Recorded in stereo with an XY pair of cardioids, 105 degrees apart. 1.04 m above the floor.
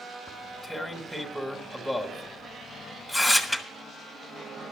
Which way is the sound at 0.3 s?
10° left.